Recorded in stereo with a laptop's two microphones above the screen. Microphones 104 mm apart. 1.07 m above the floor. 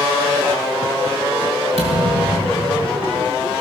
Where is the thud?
80° right, 5 m.